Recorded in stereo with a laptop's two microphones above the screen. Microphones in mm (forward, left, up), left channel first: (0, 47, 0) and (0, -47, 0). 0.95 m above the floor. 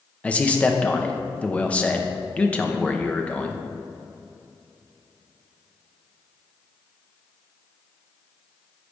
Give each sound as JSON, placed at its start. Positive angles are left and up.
{"t": 0.2, "sound": "a man speaking", "side_deg": 15, "distance_m": 0.9}